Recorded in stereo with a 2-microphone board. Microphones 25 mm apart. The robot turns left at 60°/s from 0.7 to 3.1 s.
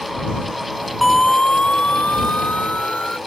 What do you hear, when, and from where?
1.0 s a siren: 5° left (ahead or behind); by 3.2 s 50° left (ahead or behind)